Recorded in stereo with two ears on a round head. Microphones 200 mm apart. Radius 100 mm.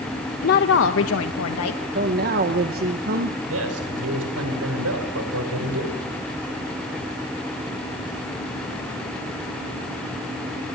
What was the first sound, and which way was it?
A woman speaking, 45° left (ahead or behind).